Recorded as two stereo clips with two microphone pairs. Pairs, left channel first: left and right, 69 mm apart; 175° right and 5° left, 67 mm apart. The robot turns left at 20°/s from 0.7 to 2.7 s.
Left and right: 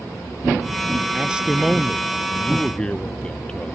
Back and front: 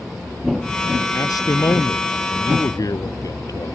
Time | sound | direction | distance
1.1 | a man speaking | 165° right | ?